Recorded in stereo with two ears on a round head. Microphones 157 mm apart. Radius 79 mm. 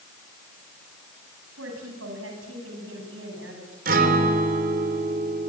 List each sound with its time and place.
1.6 s a woman speaking: 85° right, 8.5 m; by 3.8 s 70° right (ahead or behind), 8.5 m
3.9 s a guitar: 50° right (ahead or behind), 3.5 m